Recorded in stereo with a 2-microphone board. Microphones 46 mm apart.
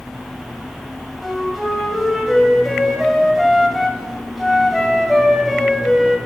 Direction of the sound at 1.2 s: Centre (ahead or behind).